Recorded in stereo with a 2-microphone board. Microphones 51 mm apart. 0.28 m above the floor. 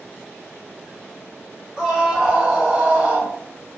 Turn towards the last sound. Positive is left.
turn(degrees=-25)  # may be behind; listen again after turning